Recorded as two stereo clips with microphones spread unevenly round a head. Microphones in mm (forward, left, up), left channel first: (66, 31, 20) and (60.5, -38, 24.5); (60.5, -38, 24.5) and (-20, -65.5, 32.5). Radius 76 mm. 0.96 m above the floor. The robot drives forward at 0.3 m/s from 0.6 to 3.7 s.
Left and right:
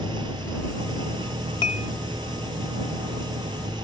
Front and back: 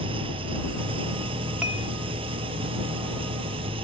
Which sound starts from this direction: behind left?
Dishes clattering, at 1.6 s.